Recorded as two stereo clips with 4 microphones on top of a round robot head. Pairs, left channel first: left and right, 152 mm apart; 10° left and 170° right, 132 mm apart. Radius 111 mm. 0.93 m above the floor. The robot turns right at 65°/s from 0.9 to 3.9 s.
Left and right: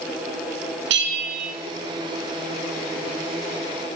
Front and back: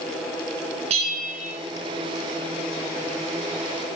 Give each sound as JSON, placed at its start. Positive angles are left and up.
{"t": 0.9, "sound": "a bell", "azimuth_deg": -110, "distance_m": 2.0}